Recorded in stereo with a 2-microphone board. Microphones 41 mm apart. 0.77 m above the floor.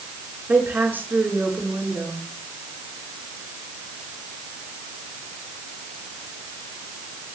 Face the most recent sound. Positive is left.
turn(degrees=-60)  # may be behind; listen again after turning